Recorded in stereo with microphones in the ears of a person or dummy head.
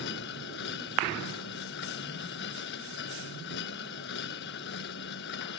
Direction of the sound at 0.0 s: 65° left (ahead or behind).